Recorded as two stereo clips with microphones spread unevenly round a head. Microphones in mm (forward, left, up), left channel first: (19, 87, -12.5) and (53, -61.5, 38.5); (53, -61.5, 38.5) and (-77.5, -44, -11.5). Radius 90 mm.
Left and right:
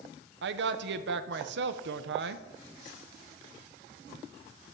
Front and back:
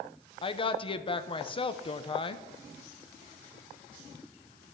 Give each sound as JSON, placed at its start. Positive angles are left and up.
{"t": 0.4, "sound": "a woman speaking", "azimuth_deg": -65, "distance_m": 0.9}